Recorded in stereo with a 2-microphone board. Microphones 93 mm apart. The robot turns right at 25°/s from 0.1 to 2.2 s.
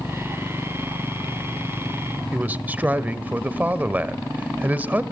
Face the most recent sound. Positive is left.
turn(degrees=-20)  # may be behind; listen again after turning